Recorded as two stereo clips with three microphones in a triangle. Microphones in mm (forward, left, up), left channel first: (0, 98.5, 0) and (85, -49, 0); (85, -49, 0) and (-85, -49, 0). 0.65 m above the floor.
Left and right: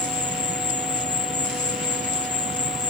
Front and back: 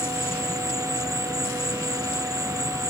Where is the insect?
95° right.